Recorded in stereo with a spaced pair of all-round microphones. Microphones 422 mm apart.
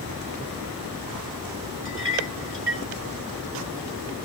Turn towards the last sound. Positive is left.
turn(degrees=-75)  # may be behind; listen again after turning